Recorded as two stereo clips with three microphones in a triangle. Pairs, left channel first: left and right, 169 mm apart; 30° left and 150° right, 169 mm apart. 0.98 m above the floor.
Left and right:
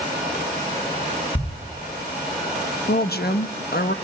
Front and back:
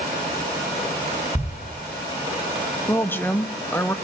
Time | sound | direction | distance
1.4 | a thud | 125° left | 3 m
2.9 | a woman speaking | 105° left | 1.0 m